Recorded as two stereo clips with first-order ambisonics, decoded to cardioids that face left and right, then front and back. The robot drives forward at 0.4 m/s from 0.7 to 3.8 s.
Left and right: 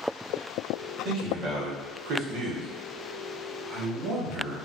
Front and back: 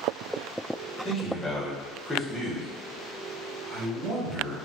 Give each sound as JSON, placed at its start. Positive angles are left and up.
{"t": 1.1, "sound": "a man speaking", "azimuth_deg": -60, "distance_m": 1.2}